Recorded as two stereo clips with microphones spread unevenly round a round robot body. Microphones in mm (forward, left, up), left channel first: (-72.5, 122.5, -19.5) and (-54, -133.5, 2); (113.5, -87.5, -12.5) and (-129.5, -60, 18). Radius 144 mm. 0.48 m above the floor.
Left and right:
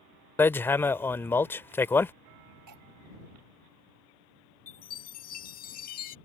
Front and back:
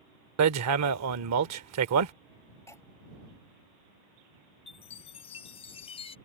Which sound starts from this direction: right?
Cutlery clinking, at 2.7 s.